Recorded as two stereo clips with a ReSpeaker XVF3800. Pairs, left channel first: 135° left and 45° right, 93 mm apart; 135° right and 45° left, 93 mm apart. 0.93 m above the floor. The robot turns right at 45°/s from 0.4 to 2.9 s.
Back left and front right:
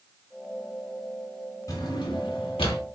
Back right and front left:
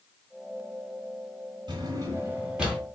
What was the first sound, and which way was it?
A drawer, 80° left.